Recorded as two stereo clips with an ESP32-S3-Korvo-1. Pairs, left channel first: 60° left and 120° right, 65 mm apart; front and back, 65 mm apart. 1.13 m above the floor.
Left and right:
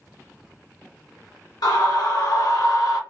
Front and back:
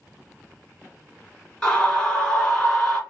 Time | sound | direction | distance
1.6 | a scream | 75° left | 1.2 m